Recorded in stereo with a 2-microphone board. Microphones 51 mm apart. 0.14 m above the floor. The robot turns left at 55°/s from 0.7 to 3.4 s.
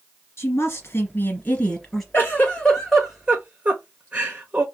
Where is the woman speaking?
80° left, 2.5 m; by 2.0 s 10° left, 2.5 m.